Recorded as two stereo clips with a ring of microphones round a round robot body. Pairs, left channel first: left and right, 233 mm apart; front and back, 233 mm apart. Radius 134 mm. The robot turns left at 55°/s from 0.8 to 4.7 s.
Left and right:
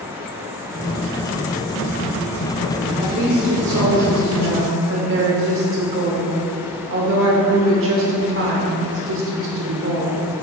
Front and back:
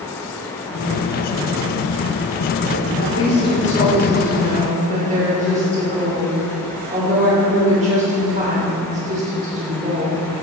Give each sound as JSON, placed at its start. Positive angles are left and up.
{"t": 3.0, "sound": "a woman speaking", "azimuth_deg": -25, "distance_m": 2.5}